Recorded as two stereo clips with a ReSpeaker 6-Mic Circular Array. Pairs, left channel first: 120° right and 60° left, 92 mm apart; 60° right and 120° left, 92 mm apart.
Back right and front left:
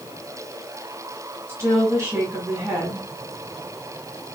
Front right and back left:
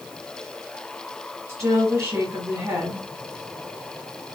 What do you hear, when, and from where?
1.5 s a woman speaking: 95° left, 1.4 m